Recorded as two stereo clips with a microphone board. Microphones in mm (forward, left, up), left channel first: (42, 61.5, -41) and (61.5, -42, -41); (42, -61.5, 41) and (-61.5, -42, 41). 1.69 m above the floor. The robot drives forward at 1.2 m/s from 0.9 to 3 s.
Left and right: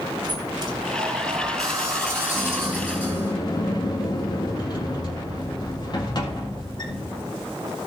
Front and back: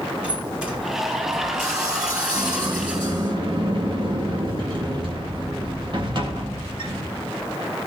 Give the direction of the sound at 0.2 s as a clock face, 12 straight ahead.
4 o'clock.